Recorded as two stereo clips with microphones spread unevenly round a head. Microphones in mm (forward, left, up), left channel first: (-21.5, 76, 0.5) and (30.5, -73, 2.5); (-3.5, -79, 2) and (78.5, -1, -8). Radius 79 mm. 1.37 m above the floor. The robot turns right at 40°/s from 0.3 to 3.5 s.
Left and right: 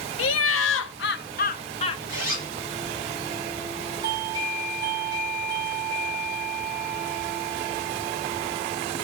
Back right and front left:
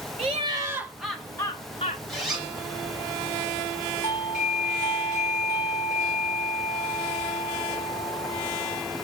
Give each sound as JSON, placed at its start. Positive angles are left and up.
{"t": 0.2, "sound": "laughter", "azimuth_deg": 105, "distance_m": 0.8}
{"t": 2.1, "sound": "a zipper", "azimuth_deg": 100, "distance_m": 6.0}
{"t": 4.0, "sound": "a doorbell", "azimuth_deg": -135, "distance_m": 1.7}